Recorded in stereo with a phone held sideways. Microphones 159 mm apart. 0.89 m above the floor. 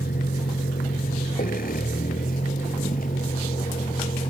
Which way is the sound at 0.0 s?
75° left (ahead or behind).